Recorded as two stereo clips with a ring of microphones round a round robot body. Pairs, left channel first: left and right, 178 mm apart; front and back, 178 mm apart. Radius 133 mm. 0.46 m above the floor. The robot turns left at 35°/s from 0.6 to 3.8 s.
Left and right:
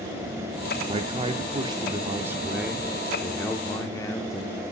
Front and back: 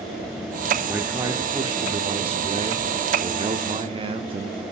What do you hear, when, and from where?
0.9 s a man speaking: 110° right, 0.8 m; by 4.6 s 145° left, 0.8 m